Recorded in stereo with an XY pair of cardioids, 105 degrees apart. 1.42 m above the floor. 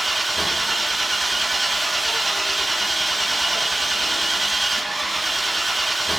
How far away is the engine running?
About 1.5 m.